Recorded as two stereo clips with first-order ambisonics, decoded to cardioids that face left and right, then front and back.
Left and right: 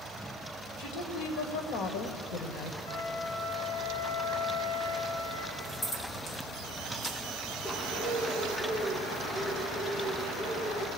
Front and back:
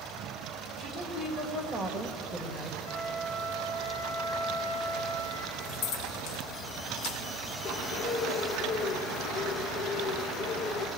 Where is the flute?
55° left, 9.5 m.